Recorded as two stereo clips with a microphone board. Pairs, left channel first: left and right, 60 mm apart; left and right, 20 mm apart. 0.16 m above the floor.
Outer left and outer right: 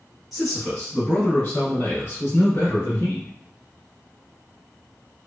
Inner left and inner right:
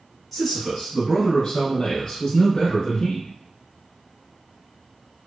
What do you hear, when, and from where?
0.3 s a man speaking: centre (ahead or behind), 1.2 m; by 3.3 s 50° left (ahead or behind), 1.6 m